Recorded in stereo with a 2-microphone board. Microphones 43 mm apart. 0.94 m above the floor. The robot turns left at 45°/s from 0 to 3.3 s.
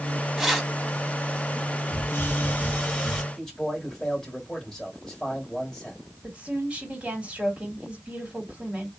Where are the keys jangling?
5° right (ahead or behind), 0.9 m; by 0.7 s 10° left (ahead or behind), 0.9 m.